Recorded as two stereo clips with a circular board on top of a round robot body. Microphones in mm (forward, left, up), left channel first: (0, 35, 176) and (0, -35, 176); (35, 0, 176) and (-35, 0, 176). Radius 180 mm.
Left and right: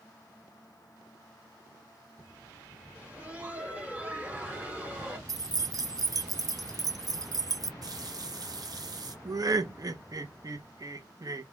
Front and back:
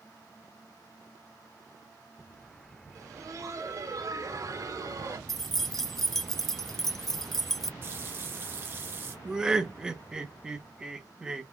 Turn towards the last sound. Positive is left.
turn(degrees=-105)